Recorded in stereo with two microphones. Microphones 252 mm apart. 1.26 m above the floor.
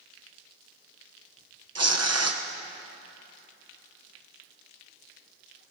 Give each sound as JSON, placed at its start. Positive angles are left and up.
{"t": 1.8, "sound": "tearing paper", "side_deg": -70, "distance_m": 0.9}